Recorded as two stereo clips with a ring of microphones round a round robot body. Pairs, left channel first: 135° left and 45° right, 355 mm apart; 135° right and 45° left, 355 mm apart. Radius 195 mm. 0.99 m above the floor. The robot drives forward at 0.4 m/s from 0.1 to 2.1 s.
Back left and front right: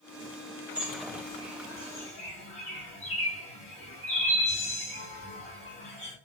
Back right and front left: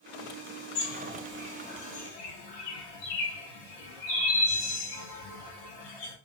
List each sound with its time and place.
0.8 s a bird: 130° right, 0.6 m; by 6.2 s 155° right, 1.1 m